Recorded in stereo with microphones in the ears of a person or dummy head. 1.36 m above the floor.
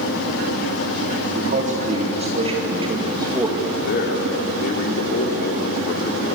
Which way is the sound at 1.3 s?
45° right (ahead or behind).